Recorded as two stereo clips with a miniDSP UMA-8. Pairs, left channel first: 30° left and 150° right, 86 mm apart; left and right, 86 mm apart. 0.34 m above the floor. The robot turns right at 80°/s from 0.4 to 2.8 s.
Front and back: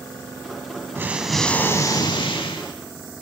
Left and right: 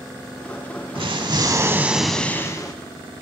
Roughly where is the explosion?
Right.